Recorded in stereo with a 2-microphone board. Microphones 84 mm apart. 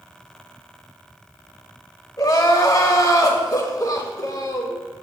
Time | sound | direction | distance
2.2 | crying | 50° left (ahead or behind) | 1.2 m